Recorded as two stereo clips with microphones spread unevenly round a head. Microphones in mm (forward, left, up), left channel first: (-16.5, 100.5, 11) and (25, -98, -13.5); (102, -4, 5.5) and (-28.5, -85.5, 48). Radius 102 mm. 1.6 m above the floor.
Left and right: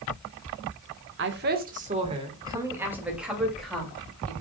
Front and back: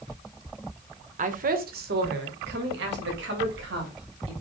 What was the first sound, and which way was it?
A woman speaking, 115° right.